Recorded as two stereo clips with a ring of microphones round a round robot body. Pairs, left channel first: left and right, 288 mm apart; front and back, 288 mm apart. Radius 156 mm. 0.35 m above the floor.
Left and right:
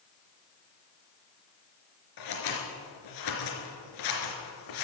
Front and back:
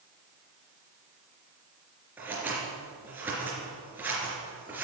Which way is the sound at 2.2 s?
95° left.